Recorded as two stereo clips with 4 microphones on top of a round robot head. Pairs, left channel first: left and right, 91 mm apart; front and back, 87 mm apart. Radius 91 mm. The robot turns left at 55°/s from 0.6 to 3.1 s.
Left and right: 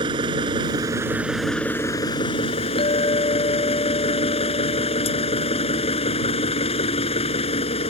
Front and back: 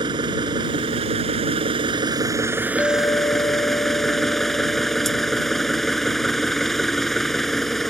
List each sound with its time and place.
0.0 s an engine running: 135° right; by 7.9 s 90° left
2.8 s a clink: 70° left; by 6.2 s 55° left